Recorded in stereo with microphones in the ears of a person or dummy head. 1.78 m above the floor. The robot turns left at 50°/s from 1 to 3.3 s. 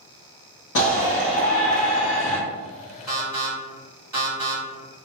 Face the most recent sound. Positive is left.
turn(degrees=-20)  # may be behind; listen again after turning